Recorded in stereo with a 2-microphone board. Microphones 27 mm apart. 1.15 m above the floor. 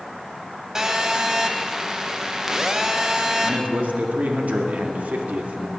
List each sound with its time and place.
0.8 s a phone buzzing: 20° right (ahead or behind), 1.1 m
3.4 s a man speaking: 80° right, 2.0 m